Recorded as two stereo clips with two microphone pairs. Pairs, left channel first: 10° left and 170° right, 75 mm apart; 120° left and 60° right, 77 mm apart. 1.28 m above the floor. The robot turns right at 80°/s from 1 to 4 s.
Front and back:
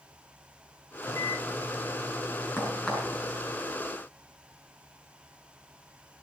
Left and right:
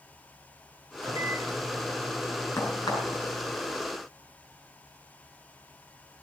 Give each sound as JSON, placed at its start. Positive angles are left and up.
{"t": 1.0, "sound": "a microwave", "azimuth_deg": -45, "distance_m": 2.0}
{"t": 2.6, "sound": "a crack", "azimuth_deg": 70, "distance_m": 6.5}